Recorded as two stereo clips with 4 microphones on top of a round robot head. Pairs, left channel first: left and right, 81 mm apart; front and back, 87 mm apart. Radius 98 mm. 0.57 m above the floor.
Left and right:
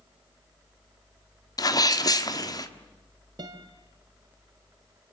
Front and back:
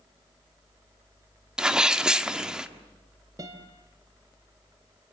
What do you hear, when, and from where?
1.6 s a sneeze: 100° left, 1.8 m
3.4 s a guitar: 125° right, 2.5 m